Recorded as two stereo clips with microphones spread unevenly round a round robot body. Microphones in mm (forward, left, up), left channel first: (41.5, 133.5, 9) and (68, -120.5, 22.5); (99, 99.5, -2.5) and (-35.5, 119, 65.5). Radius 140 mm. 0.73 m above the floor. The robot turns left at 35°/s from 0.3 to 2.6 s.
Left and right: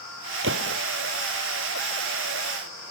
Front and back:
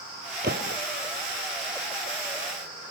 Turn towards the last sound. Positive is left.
turn(degrees=150)